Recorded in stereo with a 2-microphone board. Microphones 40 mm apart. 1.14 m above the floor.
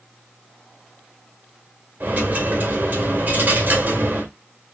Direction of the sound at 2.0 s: 55° right (ahead or behind).